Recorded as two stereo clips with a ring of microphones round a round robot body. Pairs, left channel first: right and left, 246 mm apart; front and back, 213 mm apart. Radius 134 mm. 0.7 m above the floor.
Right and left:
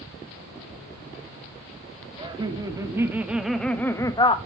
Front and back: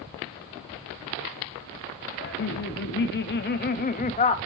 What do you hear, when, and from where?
2.2 s laughter: 20° left, 2 m; by 4.4 s 40° right, 1.2 m